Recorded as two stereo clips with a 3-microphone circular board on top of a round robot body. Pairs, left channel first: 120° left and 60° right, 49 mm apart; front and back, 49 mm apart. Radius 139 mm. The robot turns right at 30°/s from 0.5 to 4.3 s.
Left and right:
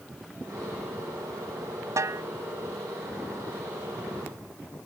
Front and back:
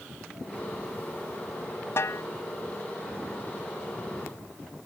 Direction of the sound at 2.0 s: 35° right.